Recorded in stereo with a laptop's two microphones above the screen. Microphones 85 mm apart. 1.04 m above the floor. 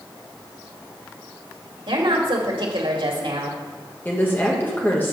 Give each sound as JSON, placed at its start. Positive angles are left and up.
{"t": 1.9, "sound": "a woman speaking", "side_deg": -70, "distance_m": 2.0}
{"t": 4.0, "sound": "a woman speaking", "side_deg": 25, "distance_m": 1.2}